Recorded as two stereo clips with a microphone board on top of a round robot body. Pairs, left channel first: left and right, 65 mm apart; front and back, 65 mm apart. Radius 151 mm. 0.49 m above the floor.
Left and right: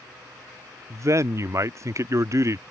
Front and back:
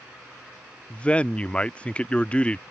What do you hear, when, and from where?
0.9 s a man speaking: 70° right